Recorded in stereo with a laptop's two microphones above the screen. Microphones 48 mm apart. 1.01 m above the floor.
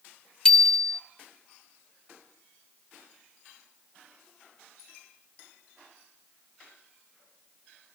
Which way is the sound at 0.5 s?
15° left (ahead or behind).